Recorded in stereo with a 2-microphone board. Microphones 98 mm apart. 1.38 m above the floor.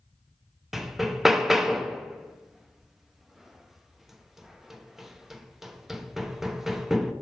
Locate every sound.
0.7 s hammering: 5° right (ahead or behind), 0.5 m